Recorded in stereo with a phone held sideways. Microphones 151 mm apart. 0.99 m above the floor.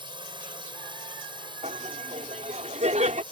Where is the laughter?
55° right (ahead or behind).